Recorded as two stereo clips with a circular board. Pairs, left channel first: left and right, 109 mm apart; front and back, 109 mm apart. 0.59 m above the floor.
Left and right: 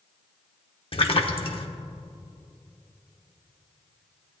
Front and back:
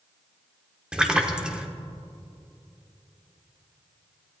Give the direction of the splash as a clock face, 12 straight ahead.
9 o'clock.